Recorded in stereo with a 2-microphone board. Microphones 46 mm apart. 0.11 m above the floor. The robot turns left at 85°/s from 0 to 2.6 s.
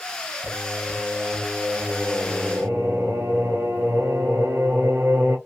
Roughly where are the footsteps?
I don't hear footsteps.